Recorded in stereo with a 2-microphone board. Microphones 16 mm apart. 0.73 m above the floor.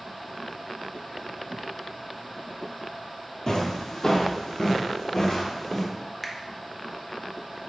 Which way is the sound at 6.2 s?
10° left (ahead or behind).